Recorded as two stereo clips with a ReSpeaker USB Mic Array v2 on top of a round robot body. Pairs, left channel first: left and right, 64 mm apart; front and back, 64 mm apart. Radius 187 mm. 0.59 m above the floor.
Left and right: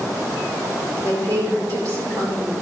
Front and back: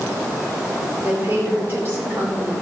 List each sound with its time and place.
1.0 s a woman speaking: 125° right, 3 m